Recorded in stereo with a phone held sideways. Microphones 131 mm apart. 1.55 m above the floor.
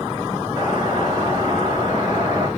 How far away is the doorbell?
About 6 m.